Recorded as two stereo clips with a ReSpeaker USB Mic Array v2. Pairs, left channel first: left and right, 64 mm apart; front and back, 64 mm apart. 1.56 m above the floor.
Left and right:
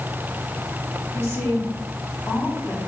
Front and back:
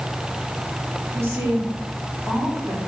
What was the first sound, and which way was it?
A woman speaking, 135° left.